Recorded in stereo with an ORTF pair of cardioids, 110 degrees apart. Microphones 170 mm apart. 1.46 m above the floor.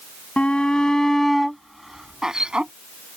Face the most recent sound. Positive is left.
turn(degrees=-5)